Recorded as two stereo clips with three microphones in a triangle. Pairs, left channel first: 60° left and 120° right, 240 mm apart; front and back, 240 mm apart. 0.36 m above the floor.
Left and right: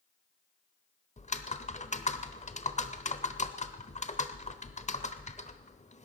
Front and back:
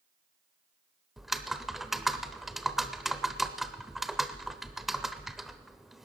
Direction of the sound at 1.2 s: 90° left.